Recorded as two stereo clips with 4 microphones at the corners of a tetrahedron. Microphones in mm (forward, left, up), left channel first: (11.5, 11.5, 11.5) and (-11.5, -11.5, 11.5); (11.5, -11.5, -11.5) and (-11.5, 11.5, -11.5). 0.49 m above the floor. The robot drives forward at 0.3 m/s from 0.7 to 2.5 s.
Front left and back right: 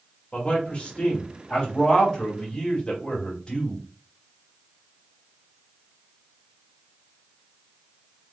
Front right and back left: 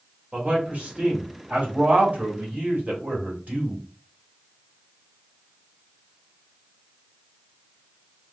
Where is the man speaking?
95° left, 2 m; by 3.8 s 110° left, 2 m.